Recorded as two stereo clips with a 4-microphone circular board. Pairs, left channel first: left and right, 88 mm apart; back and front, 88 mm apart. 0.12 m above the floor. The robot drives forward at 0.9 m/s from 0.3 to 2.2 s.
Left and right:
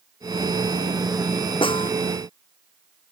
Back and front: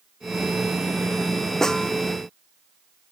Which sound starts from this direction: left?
A snare drum, at 1.6 s.